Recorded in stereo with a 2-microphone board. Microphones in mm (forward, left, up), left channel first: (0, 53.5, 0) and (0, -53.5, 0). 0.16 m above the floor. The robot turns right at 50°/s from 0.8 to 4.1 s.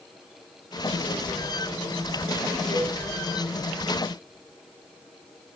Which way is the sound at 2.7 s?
85° right.